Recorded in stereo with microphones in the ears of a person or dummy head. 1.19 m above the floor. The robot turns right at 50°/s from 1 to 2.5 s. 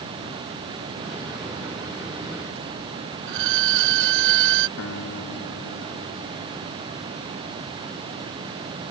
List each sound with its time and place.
3.3 s a violin: 65° right (ahead or behind)
4.8 s a guitar: 60° left (ahead or behind)